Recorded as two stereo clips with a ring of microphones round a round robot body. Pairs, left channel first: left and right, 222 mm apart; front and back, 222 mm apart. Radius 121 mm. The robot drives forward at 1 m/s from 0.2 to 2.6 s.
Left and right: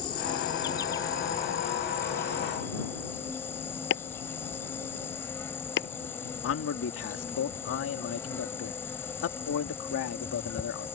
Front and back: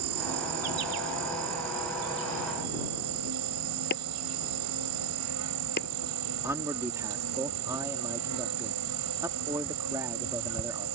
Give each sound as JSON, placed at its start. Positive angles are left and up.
{"t": 0.0, "sound": "an insect", "azimuth_deg": 160}
{"t": 3.9, "sound": "chopping", "azimuth_deg": 55}
{"t": 6.4, "sound": "a man speaking", "azimuth_deg": 105}